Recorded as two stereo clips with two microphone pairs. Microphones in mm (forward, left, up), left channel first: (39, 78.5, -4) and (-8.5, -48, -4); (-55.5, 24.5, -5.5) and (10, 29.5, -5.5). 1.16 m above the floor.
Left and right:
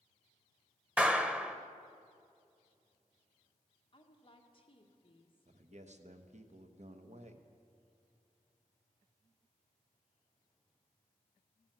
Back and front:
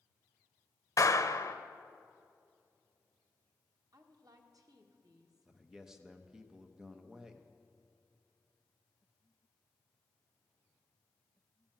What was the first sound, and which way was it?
A clap, 165° left.